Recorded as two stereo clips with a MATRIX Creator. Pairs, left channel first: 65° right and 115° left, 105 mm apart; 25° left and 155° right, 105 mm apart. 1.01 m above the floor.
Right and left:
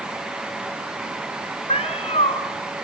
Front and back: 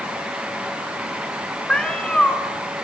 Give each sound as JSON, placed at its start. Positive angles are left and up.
{"t": 1.7, "sound": "a cat meowing", "azimuth_deg": -60, "distance_m": 3.0}